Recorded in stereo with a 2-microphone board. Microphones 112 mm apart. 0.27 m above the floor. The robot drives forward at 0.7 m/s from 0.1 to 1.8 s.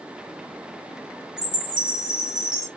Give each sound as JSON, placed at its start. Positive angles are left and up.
{"t": 1.4, "sound": "a chime", "side_deg": -10, "distance_m": 1.9}